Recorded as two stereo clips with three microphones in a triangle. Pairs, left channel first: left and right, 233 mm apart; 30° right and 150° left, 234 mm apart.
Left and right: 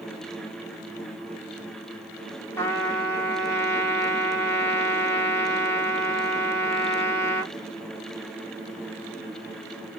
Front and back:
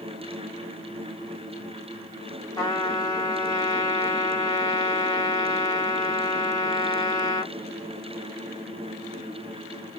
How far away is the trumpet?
About 1.3 m.